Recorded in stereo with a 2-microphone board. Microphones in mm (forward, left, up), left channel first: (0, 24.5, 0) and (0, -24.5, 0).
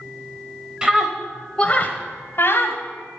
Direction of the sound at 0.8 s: 15° right (ahead or behind).